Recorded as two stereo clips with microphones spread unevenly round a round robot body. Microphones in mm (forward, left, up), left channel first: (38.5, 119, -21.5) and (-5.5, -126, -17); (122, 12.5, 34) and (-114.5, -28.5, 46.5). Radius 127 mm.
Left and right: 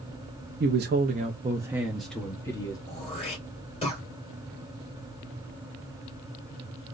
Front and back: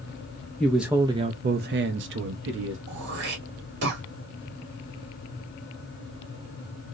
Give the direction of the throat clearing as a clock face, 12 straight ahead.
7 o'clock.